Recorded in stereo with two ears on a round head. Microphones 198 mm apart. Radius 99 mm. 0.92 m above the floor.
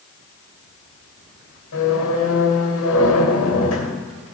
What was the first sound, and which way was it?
A squeak, 80° left.